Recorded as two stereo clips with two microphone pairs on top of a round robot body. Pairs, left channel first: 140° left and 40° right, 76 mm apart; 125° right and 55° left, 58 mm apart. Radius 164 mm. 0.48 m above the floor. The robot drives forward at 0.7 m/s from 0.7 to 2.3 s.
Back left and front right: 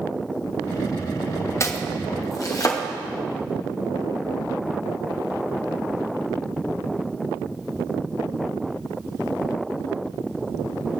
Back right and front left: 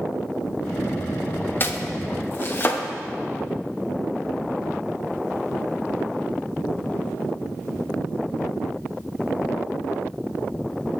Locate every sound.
1.6 s chopping: 170° right, 0.7 m; by 2.8 s 175° right, 1.1 m